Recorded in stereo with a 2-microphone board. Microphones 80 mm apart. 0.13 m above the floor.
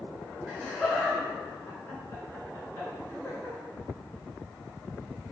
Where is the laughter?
Centre (ahead or behind), 1.4 m; by 3.6 s 45° left (ahead or behind), 2 m.